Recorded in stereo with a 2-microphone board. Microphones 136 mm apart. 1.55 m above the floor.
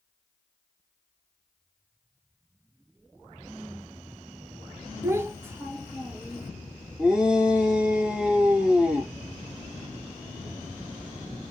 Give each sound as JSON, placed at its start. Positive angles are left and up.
{"t": 5.0, "sound": "a child speaking", "side_deg": -15, "distance_m": 0.8}
{"t": 7.0, "sound": "a shout", "side_deg": 0, "distance_m": 0.8}